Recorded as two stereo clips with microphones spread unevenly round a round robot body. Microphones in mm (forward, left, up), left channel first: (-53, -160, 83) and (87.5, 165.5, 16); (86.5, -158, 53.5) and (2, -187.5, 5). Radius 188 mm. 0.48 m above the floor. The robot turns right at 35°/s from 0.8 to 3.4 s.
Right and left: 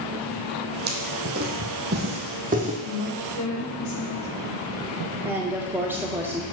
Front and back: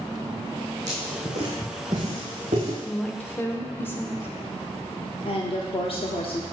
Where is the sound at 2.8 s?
90° right, 1.5 m; by 4.3 s 70° right, 1.5 m.